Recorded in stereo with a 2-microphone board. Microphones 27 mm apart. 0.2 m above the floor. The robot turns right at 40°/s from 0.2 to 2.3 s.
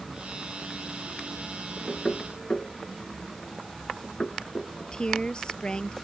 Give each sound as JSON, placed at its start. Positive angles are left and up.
{"t": 1.9, "sound": "knocking", "side_deg": 20}
{"t": 4.8, "sound": "a woman speaking", "side_deg": 35}